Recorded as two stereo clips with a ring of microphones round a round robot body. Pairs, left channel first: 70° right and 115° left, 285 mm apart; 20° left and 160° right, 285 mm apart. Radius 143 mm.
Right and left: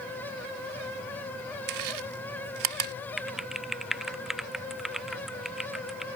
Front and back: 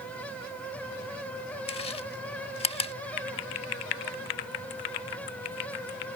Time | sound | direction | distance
1.7 | chewing | 95° left | ?
3.2 | typing on a keyboard | 25° left | ?